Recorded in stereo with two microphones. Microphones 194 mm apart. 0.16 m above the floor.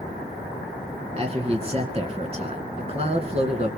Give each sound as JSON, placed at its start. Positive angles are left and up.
{"t": 1.2, "sound": "a man speaking", "side_deg": -35, "distance_m": 2.0}